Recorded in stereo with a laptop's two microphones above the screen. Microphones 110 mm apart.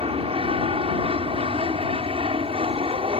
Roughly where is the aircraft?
Right.